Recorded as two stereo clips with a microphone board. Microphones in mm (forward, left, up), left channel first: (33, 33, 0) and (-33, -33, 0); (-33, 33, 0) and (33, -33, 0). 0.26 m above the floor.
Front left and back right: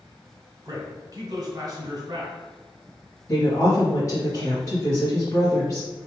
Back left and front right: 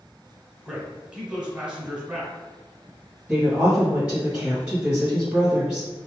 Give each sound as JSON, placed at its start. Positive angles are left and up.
{"t": 0.7, "sound": "a man speaking", "azimuth_deg": -120, "distance_m": 1.8}
{"t": 3.3, "sound": "a woman speaking", "azimuth_deg": 25, "distance_m": 1.1}